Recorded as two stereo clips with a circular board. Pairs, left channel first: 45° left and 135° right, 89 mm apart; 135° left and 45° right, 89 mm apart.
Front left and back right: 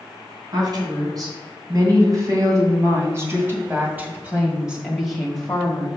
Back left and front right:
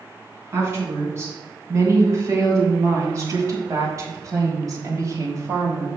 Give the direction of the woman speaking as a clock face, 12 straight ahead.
3 o'clock.